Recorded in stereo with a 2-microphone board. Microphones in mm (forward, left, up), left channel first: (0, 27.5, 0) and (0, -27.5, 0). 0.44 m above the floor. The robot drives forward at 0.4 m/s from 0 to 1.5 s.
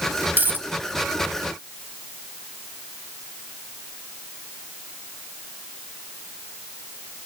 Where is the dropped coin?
40° right (ahead or behind), 0.7 m; by 0.7 s 30° right (ahead or behind), 0.8 m.